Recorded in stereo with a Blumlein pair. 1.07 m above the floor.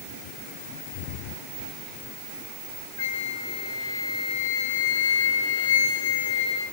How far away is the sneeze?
No sneeze in this recording.